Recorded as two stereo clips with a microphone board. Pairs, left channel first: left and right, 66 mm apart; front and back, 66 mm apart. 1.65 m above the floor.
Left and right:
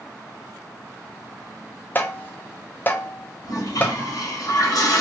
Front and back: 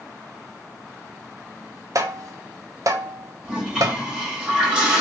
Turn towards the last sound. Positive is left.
turn(degrees=105)